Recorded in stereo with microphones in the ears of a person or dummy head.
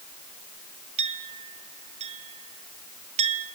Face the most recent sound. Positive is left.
turn(degrees=-35)  # may be behind; listen again after turning